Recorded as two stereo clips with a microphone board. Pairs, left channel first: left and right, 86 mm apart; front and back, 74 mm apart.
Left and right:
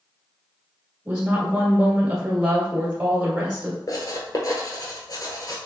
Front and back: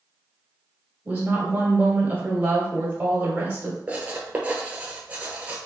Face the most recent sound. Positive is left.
turn(degrees=115)